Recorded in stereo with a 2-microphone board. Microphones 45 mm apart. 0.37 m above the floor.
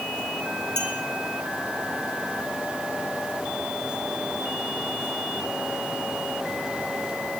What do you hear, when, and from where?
0.8 s a clink: 65° right (ahead or behind), 3 m